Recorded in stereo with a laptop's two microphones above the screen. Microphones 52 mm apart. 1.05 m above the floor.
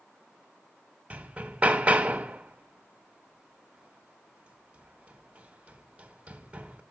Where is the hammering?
25° right (ahead or behind), 1.0 m.